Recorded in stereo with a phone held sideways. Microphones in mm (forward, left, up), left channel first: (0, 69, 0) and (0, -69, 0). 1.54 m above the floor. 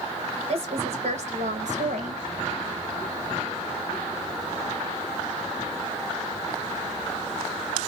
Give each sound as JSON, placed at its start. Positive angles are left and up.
{"t": 0.5, "sound": "a woman speaking", "side_deg": -50, "distance_m": 1.9}